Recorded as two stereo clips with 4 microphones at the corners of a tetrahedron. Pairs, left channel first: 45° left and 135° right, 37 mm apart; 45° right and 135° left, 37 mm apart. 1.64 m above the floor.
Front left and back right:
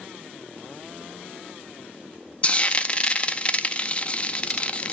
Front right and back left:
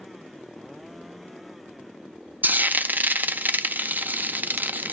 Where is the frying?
100° left, 0.5 m.